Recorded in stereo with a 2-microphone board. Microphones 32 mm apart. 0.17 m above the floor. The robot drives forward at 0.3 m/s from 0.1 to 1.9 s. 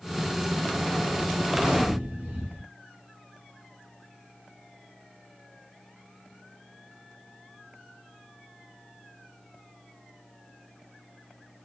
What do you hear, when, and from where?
1.5 s a gunshot: 25° right (ahead or behind), 1.2 m